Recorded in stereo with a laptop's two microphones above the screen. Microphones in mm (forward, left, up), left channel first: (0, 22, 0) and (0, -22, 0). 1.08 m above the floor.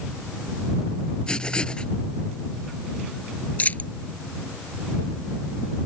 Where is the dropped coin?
35° left (ahead or behind).